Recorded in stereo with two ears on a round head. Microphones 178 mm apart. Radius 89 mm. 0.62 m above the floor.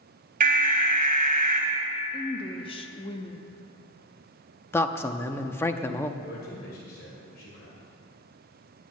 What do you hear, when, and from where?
0.4 s an alarm: 45° right (ahead or behind), 2.5 m
2.1 s a woman speaking: 30° left (ahead or behind), 0.7 m
4.7 s a man speaking: 10° left (ahead or behind), 0.5 m
6.2 s a man speaking: 50° left (ahead or behind), 3 m